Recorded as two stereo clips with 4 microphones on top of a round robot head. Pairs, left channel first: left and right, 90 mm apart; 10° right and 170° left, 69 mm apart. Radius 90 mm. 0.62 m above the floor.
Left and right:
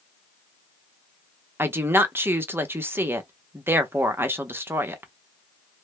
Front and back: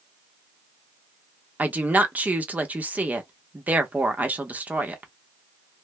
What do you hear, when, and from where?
1.6 s a woman speaking: 140° right, 0.9 m